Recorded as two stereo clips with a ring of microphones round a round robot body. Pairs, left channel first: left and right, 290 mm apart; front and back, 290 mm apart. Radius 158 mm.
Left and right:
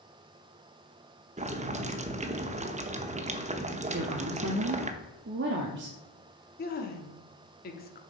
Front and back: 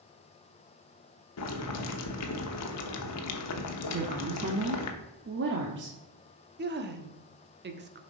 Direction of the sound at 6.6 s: 140° left.